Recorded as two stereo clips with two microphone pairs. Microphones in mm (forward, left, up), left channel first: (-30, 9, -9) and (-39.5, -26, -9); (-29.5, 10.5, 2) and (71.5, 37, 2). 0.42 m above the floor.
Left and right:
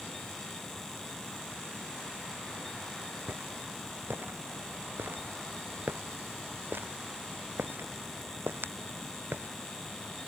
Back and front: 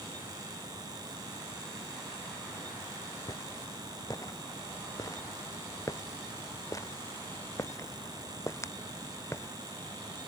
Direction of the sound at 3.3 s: 110° right.